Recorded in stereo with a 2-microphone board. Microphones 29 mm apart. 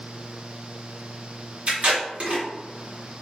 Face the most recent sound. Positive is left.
turn(degrees=-45)  # may be behind; listen again after turning